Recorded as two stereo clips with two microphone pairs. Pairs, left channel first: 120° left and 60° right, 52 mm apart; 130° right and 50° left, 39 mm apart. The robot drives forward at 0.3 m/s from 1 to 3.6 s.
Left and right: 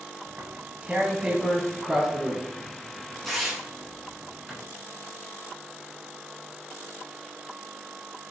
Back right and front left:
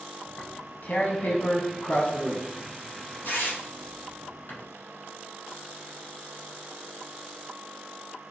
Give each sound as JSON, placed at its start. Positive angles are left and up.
{"t": 0.3, "sound": "tearing paper", "azimuth_deg": -125, "distance_m": 0.7}